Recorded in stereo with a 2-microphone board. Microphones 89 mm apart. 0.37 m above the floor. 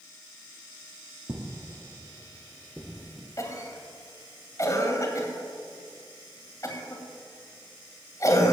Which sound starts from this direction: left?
A cough, at 3.4 s.